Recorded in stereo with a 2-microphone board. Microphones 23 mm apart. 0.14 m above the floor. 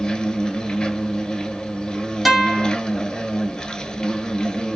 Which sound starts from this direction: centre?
A guitar, at 2.2 s.